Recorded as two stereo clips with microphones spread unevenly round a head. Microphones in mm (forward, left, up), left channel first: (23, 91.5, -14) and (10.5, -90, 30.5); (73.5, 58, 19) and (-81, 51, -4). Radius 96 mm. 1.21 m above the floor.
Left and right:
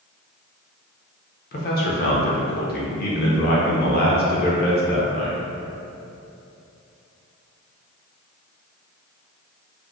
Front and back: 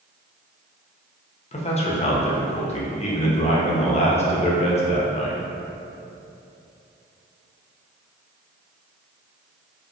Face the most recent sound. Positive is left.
turn(degrees=55)